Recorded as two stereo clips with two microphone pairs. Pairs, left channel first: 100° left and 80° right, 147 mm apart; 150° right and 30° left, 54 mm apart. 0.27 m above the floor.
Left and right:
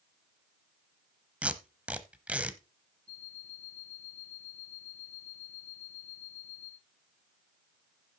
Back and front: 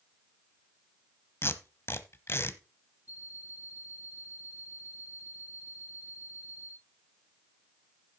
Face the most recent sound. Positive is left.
turn(degrees=-145)